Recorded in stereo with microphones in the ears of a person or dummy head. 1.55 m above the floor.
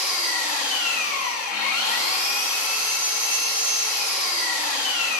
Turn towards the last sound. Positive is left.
turn(degrees=55)  # may be behind; listen again after turning